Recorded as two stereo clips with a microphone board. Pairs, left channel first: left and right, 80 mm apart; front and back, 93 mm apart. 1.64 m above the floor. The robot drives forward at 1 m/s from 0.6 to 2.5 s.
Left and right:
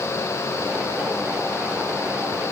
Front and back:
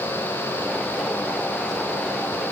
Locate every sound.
Only background noise.